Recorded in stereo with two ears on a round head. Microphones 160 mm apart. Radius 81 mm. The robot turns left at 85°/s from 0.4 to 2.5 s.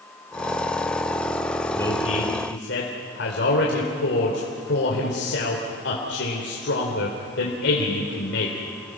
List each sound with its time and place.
1.7 s a man speaking: 170° left, 3 m; by 8.6 s 105° left, 3 m